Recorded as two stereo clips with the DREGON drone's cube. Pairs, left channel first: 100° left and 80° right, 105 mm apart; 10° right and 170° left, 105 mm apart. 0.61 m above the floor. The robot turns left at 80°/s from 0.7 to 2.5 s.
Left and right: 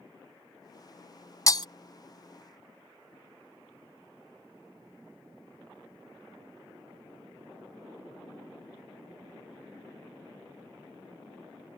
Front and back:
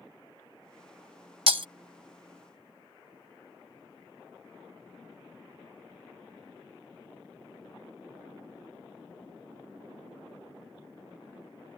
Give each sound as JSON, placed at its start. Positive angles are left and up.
{"t": 1.5, "sound": "breaking glass", "azimuth_deg": 155}